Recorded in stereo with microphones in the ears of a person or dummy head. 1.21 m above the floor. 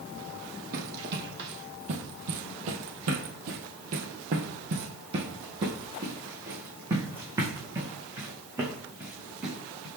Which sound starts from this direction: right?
Running footsteps, at 0.7 s.